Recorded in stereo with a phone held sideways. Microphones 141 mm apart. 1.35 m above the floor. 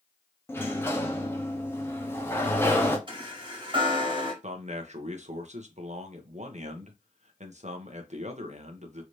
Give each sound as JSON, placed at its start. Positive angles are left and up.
{"t": 0.5, "sound": "a sliding door", "side_deg": 15, "distance_m": 0.9}
{"t": 3.1, "sound": "a chime", "side_deg": -35, "distance_m": 1.6}
{"t": 4.4, "sound": "a man speaking", "side_deg": -55, "distance_m": 0.9}